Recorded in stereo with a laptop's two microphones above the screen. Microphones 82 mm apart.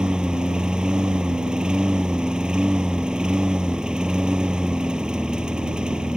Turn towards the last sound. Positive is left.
turn(degrees=-10)  # may be behind; listen again after turning